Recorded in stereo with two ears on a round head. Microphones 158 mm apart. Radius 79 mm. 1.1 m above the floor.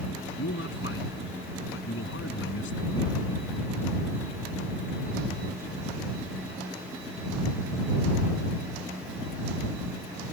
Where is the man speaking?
90° left.